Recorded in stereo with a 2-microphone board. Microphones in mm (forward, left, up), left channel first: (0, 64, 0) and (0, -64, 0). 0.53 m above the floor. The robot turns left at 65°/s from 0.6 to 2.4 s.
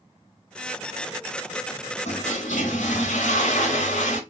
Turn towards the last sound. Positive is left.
turn(degrees=75)  # may be behind; listen again after turning